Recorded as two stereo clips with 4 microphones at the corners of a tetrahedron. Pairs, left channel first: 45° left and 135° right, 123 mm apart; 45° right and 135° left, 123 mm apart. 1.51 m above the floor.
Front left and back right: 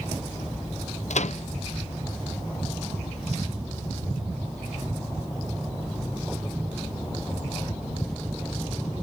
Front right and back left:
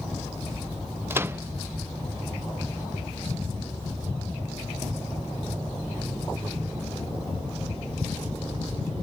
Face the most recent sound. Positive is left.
turn(degrees=65)